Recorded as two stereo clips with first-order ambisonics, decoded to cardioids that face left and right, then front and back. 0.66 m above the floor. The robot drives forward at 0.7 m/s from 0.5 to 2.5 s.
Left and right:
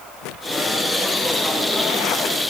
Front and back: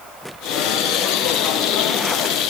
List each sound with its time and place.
Only background noise.